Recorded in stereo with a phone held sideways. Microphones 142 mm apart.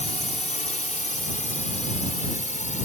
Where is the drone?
60° left (ahead or behind); by 2.9 s 65° left (ahead or behind).